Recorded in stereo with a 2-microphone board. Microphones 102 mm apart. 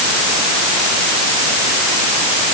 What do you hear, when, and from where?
Only background noise.